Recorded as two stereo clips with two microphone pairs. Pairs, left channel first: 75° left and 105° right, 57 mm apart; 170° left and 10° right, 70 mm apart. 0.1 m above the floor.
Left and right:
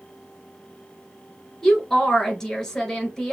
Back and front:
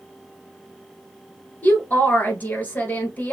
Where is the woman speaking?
145° left, 1.1 m.